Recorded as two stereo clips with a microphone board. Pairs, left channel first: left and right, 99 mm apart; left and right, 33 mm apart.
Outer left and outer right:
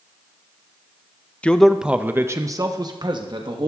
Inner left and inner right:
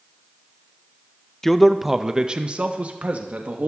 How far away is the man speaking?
About 0.7 m.